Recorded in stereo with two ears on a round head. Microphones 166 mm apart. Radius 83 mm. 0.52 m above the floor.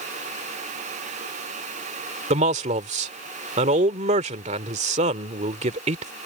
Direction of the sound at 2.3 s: 40° right (ahead or behind).